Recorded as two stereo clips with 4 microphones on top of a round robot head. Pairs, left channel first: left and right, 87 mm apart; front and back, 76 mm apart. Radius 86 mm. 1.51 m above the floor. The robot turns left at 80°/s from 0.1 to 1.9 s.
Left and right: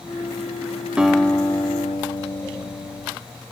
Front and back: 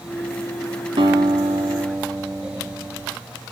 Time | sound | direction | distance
1.0 | a guitar | 165° right | 2.5 m